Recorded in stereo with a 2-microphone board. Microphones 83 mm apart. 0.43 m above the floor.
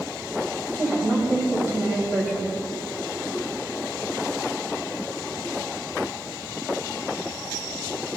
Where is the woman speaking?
25° right (ahead or behind), 2.5 m.